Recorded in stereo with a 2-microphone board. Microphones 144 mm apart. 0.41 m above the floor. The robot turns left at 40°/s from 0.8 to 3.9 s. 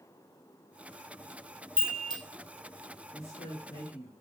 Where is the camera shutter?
No camera shutter in this recording.